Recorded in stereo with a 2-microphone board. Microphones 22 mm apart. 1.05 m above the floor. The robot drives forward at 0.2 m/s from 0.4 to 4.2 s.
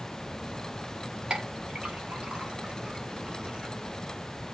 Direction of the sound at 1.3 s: 65° right (ahead or behind).